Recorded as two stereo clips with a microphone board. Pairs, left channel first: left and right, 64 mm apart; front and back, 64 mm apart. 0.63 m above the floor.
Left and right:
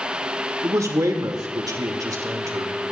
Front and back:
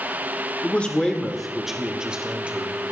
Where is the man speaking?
60° right, 1.6 m; by 2.7 s 110° right, 2.5 m.